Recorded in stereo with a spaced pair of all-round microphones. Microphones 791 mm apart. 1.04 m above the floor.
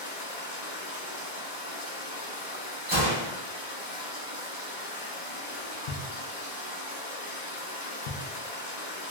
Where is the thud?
60° left (ahead or behind), 0.5 m.